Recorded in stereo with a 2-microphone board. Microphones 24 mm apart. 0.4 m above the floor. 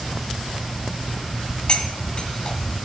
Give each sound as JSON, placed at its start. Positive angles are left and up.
{"t": 1.7, "sound": "cutlery clinking", "side_deg": 40, "distance_m": 1.9}